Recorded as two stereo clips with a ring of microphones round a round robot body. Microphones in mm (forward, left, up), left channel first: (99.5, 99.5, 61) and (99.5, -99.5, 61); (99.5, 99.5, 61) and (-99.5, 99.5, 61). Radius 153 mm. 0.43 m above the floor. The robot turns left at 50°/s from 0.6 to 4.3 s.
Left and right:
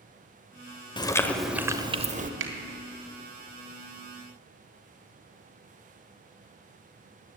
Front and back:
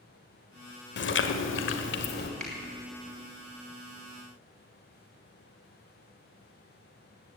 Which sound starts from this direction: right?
A finger snap, at 2.4 s.